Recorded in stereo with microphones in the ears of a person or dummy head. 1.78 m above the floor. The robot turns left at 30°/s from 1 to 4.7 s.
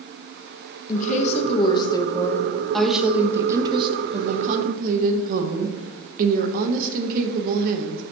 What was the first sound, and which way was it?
A woman speaking, 55° left.